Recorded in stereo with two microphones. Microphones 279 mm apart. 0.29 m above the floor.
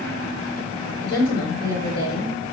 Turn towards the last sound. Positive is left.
turn(degrees=55)  # may be behind; listen again after turning